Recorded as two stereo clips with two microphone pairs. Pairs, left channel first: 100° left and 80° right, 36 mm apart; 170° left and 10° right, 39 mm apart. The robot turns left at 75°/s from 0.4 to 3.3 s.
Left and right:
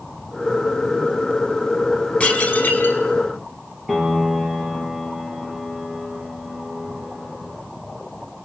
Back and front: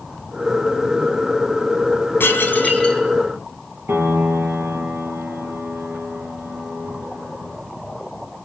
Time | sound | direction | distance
2.2 | dishes clattering | 150° left | 4.5 m
3.9 | a piano | 10° left | 4.5 m